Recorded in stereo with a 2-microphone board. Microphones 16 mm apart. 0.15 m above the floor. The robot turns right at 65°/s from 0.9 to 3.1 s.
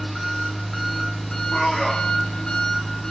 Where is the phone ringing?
No phone ringing in this recording.